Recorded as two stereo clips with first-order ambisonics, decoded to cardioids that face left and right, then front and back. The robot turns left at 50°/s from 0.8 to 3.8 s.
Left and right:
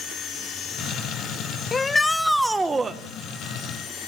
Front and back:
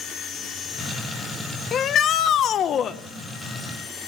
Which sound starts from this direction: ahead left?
A shout, at 1.7 s.